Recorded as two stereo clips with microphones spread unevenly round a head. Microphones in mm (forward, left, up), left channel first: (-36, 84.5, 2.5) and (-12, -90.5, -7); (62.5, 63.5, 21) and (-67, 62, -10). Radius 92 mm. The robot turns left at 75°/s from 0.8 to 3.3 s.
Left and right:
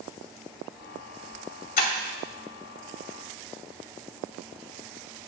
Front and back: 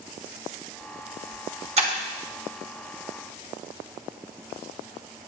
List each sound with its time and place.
1.8 s breaking glass: 140° left, 3 m; by 1.9 s 125° left, 3 m